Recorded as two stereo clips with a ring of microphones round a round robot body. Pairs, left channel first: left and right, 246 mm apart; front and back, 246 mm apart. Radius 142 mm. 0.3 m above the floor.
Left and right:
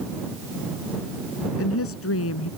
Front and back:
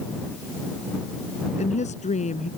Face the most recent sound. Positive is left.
turn(degrees=60)